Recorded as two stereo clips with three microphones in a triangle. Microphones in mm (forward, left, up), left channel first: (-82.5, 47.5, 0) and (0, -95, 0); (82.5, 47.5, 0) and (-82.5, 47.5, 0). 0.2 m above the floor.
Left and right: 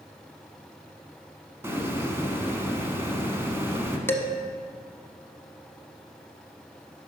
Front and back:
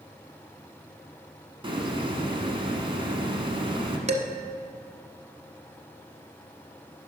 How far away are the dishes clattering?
About 0.8 m.